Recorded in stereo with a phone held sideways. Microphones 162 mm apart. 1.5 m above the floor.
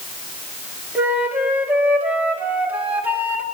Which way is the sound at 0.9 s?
10° right (ahead or behind).